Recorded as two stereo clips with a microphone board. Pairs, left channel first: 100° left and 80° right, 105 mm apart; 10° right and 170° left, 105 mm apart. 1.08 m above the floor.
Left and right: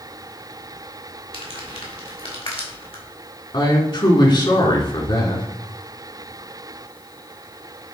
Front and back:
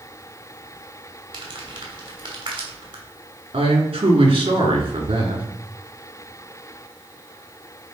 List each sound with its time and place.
1.3 s crumpling: 130° left, 3 m
3.5 s a man speaking: 140° left, 2.5 m